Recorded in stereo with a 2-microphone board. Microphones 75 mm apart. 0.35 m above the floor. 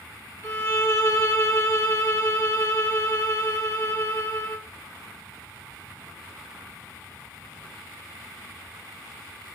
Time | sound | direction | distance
0.4 | a violin | 40° left (ahead or behind) | 1.7 m